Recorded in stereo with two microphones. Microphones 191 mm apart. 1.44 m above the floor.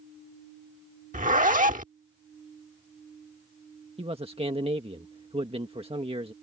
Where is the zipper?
45° right (ahead or behind).